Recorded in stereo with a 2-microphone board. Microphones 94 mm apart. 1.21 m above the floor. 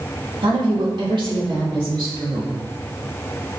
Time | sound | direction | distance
0.4 | a woman speaking | 60° right (ahead or behind) | 2.5 m